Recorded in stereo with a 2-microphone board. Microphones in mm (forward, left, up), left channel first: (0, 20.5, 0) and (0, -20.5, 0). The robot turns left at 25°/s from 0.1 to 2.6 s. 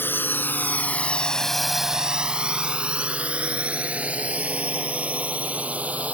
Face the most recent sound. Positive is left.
turn(degrees=-35)  # may be behind; listen again after turning